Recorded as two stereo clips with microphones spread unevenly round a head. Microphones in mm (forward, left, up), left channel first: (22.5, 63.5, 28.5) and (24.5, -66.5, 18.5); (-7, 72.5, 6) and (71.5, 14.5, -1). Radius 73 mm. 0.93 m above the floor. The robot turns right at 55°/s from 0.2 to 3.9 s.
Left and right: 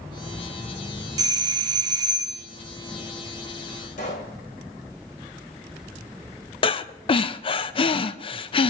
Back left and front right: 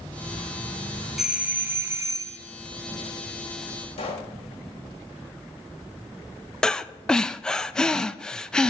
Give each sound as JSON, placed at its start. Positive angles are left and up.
{"t": 1.2, "sound": "a doorbell", "azimuth_deg": -115, "distance_m": 0.9}
{"t": 4.0, "sound": "a pop", "azimuth_deg": 130, "distance_m": 3.0}
{"t": 6.6, "sound": "breathing", "azimuth_deg": 60, "distance_m": 0.6}